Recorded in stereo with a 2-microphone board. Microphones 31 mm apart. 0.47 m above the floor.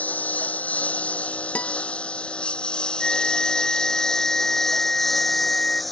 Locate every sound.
0.0 s a lawn mower: 55° left (ahead or behind); by 5.9 s centre (ahead or behind)
1.6 s a guitar: 55° left (ahead or behind)
3.0 s a flute: 30° left (ahead or behind)